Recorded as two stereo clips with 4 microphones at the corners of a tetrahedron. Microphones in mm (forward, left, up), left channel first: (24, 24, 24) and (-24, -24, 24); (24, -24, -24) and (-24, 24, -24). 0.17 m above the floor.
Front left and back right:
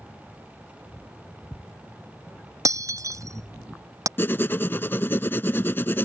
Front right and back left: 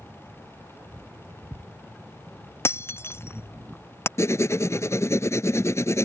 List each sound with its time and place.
2.6 s breaking glass: 100° right
4.2 s writing: 10° right